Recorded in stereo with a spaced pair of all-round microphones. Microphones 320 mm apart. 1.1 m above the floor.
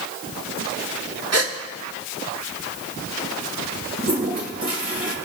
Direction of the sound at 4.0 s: 50° right (ahead or behind).